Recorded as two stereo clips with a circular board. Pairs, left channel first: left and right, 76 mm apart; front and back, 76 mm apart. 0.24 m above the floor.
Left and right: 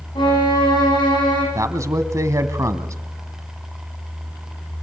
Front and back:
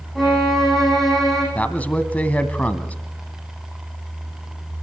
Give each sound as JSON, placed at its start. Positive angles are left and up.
{"t": 0.1, "sound": "a violin", "azimuth_deg": 85, "distance_m": 9.0}
{"t": 1.6, "sound": "a man speaking", "azimuth_deg": -65, "distance_m": 1.6}